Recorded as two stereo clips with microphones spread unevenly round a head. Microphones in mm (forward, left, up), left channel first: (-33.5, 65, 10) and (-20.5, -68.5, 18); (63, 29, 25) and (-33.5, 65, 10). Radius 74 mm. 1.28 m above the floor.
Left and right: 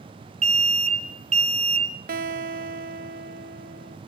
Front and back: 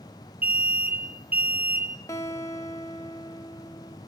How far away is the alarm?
About 1.4 m.